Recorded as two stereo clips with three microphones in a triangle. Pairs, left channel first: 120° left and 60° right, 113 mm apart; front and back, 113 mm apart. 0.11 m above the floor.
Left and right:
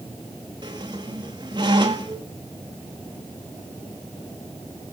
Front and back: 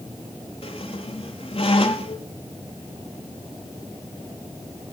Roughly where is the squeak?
Ahead.